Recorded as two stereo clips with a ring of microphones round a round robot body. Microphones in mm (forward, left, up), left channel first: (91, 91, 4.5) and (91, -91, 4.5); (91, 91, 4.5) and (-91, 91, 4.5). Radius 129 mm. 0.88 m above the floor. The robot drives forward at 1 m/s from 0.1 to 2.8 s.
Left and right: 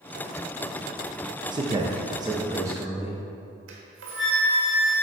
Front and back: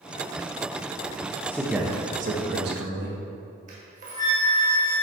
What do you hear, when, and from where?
1.5 s a man speaking: 65° right, 0.7 m; by 3.2 s 165° right, 1.4 m
3.7 s a flute: 120° right, 1.2 m